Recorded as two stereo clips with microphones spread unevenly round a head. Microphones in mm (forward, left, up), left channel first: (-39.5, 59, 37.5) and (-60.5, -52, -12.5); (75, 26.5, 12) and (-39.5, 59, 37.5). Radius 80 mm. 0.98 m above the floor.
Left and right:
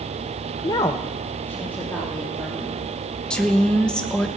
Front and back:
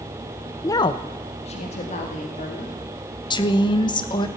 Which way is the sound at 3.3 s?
25° right.